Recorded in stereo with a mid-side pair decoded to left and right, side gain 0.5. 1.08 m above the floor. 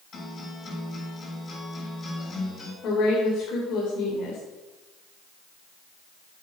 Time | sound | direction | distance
0.1 | a guitar | 40° left | 7.5 m
2.8 | a woman speaking | 65° left | 3.5 m